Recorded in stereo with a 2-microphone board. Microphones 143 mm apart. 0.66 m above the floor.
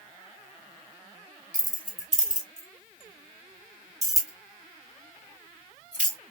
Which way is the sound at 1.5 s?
55° left (ahead or behind).